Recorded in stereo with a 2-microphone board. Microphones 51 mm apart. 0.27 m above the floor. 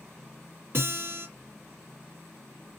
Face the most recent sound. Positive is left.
turn(degrees=-45)  # may be behind; listen again after turning